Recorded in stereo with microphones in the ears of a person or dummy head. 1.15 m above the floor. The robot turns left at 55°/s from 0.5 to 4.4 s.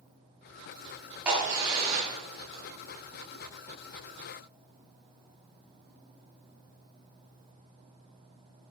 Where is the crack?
5° right (ahead or behind), 4 m; by 2.6 s 80° right, 4 m.